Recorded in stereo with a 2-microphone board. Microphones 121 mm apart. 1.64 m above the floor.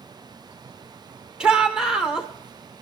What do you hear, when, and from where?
1.4 s a shout: 5° right (ahead or behind), 1.6 m